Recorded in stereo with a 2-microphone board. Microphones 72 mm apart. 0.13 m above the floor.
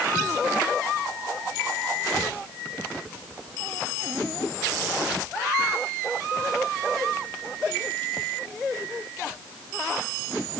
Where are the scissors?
I don't hear scissors.